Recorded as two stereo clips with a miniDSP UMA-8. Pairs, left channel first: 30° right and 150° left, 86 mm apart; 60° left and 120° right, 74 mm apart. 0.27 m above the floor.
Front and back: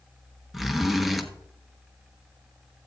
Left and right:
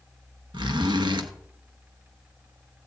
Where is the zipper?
120° right, 1.1 m.